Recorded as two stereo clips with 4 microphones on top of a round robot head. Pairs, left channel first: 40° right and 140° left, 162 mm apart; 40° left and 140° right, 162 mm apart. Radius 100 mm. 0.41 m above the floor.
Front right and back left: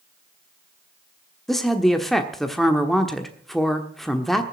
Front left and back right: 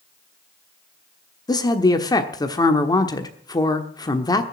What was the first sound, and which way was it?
A woman speaking, 45° left.